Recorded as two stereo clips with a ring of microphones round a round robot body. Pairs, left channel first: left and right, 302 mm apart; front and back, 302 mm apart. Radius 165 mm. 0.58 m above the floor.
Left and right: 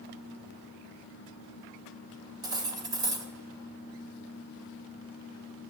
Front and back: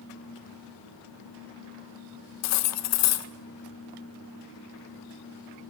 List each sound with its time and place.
2.4 s cutlery clinking: 15° right, 0.6 m